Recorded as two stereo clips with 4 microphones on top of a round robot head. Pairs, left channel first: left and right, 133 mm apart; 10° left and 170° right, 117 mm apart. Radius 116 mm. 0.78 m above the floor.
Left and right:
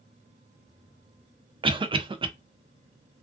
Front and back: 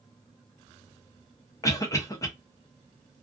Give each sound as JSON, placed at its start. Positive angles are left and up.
{"t": 1.6, "sound": "a cough", "azimuth_deg": -50, "distance_m": 0.5}